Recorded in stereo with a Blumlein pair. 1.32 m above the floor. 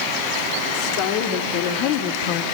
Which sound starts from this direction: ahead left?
A woman speaking, at 0.7 s.